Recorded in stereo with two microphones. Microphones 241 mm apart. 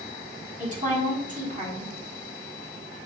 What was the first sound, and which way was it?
A woman speaking, 30° right (ahead or behind).